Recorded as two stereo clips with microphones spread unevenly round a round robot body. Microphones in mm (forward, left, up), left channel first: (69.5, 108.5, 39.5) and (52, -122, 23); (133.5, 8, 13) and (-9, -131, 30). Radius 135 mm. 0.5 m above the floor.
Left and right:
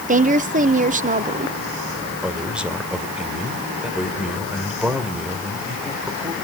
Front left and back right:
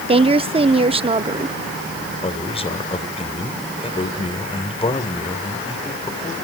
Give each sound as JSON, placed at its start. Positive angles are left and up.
{"t": 0.1, "sound": "a woman speaking", "azimuth_deg": -85, "distance_m": 1.0}
{"t": 2.2, "sound": "a man speaking", "azimuth_deg": -10, "distance_m": 2.5}